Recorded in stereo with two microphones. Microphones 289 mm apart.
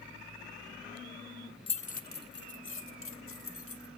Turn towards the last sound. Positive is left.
turn(degrees=55)  # may be behind; listen again after turning